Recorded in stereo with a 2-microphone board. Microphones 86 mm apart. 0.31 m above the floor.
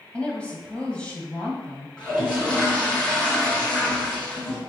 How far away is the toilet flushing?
About 3 m.